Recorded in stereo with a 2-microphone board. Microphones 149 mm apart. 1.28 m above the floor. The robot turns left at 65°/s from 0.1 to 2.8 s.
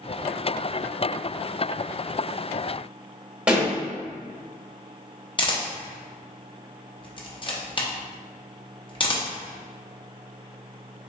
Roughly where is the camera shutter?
Left.